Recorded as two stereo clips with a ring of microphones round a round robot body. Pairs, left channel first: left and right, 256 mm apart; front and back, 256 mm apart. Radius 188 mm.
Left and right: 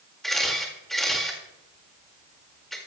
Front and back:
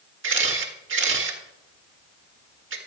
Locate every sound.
0.2 s a camera shutter: straight behind, 1.9 m